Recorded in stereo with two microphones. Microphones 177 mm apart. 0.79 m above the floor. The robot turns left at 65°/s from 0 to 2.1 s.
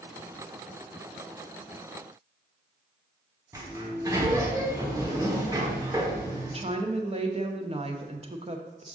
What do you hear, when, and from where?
3.5 s a sliding door: 20° right (ahead or behind), 1.1 m
6.5 s a woman speaking: 35° right (ahead or behind), 0.7 m